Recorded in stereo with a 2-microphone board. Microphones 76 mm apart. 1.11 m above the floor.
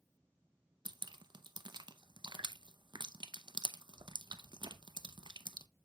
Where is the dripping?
75° right (ahead or behind), 0.6 m.